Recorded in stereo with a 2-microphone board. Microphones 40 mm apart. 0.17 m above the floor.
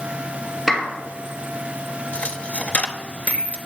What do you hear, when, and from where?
0.7 s a clap: centre (ahead or behind), 2.5 m
2.1 s a dropped coin: 40° left (ahead or behind), 0.7 m